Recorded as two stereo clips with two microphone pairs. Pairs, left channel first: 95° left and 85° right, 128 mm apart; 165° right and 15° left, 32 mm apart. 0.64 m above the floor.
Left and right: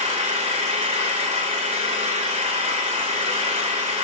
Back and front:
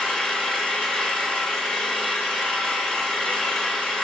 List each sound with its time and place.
0.0 s an engine running: 100° right, 2.5 m